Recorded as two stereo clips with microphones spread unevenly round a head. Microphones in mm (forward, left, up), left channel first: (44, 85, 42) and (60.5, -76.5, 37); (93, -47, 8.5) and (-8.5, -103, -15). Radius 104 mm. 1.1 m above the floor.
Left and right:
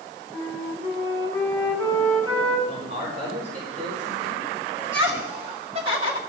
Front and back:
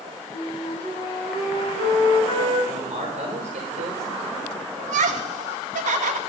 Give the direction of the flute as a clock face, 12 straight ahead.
12 o'clock.